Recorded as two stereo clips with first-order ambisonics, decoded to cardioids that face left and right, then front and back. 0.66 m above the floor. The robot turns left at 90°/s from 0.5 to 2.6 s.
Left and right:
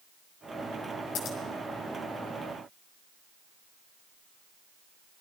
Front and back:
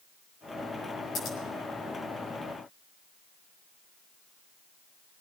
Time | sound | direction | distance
1.1 | scissors | 55° left | 5 m